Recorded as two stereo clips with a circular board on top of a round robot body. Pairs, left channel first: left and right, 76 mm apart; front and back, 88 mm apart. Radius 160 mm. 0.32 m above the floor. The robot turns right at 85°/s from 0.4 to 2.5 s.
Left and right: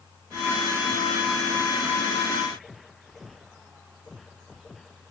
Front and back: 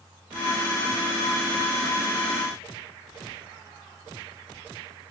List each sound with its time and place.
Only background noise.